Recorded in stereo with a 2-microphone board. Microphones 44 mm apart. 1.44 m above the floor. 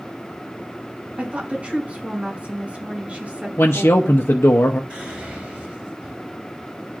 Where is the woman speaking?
35° right (ahead or behind), 5.5 m.